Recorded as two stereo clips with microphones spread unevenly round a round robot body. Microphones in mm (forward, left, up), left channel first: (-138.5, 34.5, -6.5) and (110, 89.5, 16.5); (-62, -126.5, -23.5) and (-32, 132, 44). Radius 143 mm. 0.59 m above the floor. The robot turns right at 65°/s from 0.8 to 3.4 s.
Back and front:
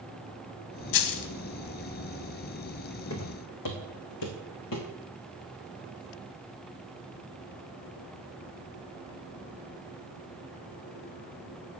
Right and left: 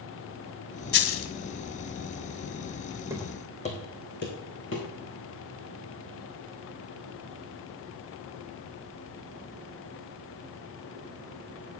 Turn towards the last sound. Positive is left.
turn(degrees=-140)